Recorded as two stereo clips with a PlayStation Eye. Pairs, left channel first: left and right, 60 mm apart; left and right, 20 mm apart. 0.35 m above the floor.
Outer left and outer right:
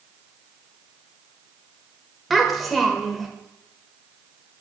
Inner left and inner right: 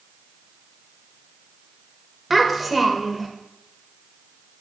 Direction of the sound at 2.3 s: Centre (ahead or behind).